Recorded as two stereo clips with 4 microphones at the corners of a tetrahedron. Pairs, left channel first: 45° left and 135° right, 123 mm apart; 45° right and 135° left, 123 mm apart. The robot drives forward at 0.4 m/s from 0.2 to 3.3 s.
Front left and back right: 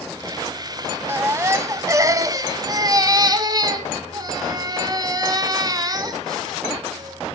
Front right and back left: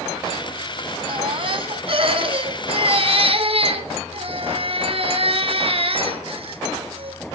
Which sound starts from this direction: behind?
A baby crying, at 1.1 s.